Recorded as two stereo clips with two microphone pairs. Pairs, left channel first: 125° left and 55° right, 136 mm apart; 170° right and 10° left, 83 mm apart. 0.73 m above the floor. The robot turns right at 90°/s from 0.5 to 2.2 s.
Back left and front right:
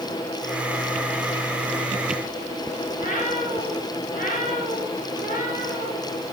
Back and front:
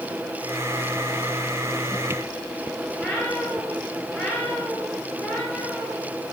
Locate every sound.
2.9 s a cat meowing: 110° left, 4.5 m